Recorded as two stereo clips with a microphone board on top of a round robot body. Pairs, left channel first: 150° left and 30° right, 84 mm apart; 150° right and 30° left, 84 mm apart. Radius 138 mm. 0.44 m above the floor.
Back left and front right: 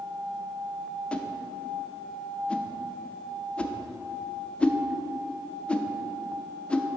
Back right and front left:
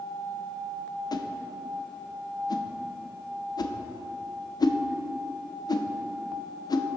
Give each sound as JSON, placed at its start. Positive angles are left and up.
{"t": 1.1, "sound": "a whoosh", "azimuth_deg": -135, "distance_m": 0.5}